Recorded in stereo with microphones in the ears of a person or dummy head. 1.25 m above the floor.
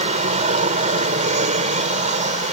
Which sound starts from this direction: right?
An aircraft, at 0.0 s.